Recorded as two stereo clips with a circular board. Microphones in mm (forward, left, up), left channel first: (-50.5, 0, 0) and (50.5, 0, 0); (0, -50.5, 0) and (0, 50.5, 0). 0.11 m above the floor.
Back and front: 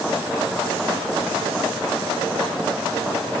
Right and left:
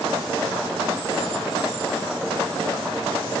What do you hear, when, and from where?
Only background noise.